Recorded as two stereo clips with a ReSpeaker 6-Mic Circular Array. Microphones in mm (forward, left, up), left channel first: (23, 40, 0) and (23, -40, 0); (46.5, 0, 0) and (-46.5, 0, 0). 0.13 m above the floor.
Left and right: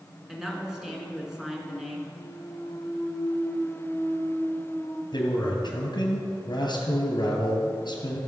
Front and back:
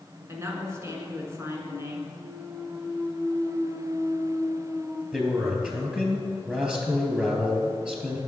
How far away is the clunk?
About 2.5 m.